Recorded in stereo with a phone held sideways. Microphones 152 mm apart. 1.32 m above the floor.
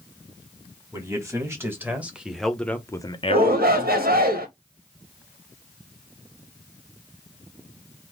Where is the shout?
85° right, 1.9 m.